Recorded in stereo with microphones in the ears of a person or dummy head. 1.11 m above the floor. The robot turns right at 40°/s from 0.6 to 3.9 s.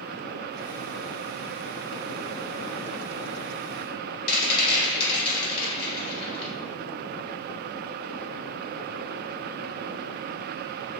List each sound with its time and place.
4.3 s a rattle: 30° left (ahead or behind), 1.2 m